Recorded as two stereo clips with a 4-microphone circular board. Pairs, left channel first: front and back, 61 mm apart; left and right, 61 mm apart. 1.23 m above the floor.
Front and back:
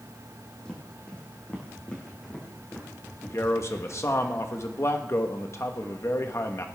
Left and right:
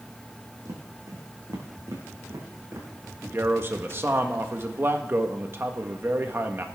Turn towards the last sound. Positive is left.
turn(degrees=-40)